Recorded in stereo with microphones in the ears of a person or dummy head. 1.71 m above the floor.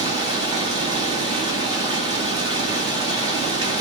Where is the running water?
25° right (ahead or behind), 1.7 m.